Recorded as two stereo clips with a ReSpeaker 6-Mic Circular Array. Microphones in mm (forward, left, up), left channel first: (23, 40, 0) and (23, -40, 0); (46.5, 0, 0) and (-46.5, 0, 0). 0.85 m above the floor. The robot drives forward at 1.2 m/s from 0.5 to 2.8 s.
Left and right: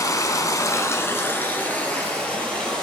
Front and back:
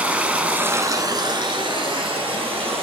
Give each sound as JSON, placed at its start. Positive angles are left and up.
{"t": 0.0, "sound": "running water", "azimuth_deg": 110, "distance_m": 1.0}